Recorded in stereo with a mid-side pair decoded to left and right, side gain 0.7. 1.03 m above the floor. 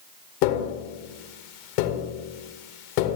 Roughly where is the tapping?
Left.